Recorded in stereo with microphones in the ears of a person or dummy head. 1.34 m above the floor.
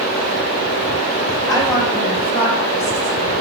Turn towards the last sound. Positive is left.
turn(degrees=55)  # may be behind; listen again after turning